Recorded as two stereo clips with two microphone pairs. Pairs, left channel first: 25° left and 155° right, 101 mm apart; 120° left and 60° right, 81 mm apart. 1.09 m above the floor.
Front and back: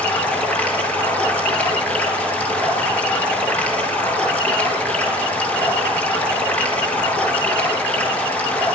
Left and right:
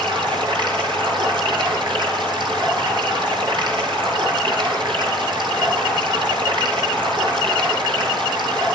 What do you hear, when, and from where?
0.0 s running water: 50° right, 8 m